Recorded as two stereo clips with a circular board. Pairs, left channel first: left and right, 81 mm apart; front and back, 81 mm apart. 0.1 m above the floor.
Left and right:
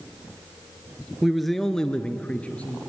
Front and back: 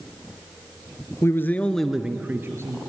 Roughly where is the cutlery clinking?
I don't hear cutlery clinking.